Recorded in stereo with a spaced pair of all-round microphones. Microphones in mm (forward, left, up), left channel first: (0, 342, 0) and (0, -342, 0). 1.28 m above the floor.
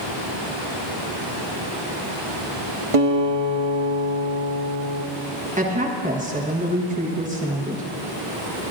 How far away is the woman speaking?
About 1.2 m.